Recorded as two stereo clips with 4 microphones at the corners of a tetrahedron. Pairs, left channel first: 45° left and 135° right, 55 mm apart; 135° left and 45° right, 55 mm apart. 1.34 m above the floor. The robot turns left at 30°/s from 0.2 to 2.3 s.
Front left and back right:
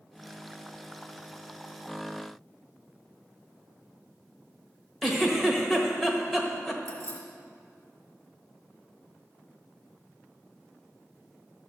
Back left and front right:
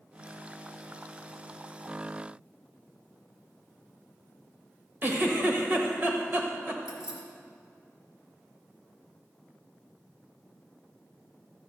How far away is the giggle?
About 1.3 m.